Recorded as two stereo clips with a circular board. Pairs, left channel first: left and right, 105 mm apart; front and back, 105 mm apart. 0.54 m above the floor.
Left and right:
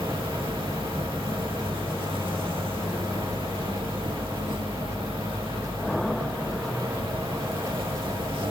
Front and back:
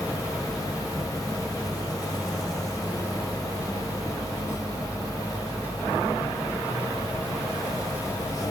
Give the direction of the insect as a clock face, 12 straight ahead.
2 o'clock.